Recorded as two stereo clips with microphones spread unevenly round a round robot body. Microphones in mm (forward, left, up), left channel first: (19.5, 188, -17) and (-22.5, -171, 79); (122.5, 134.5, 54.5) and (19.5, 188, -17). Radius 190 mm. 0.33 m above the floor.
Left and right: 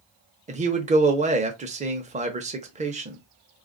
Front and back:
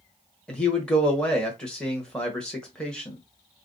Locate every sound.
0.5 s a man speaking: straight behind, 0.9 m